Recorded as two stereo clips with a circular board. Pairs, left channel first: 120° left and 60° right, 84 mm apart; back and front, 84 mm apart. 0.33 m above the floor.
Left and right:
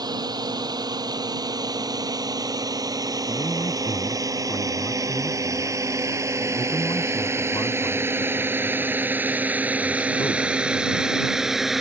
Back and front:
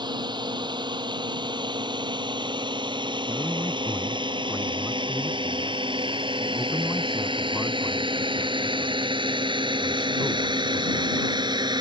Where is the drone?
25° right; by 11.8 s 25° left.